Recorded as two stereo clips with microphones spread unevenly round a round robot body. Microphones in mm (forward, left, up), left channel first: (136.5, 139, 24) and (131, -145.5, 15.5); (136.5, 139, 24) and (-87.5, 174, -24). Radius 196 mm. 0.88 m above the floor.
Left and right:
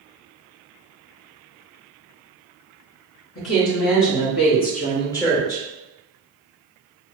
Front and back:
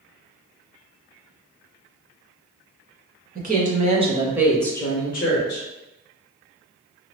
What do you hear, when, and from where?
3.4 s a woman speaking: 135° left, 1.2 m; by 5.7 s 10° right, 0.8 m